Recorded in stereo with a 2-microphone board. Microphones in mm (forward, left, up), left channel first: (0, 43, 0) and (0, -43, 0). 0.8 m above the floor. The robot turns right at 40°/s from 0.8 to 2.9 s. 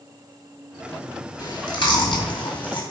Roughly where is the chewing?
Ahead left.